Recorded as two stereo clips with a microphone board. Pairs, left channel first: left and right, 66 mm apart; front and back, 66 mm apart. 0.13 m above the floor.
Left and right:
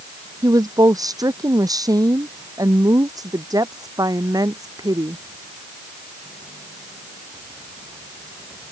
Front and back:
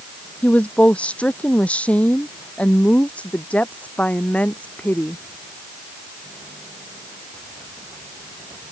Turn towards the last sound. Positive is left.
turn(degrees=-70)